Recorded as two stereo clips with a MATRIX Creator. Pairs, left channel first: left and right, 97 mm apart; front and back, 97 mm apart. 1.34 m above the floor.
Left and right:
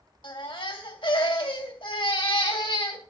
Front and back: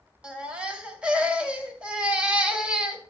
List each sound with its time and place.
0.2 s a baby crying: 105° left, 2 m